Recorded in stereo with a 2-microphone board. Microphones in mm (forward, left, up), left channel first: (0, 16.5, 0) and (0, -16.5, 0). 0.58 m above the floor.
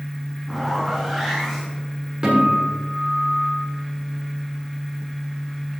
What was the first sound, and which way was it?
A zipper, 5° right (ahead or behind).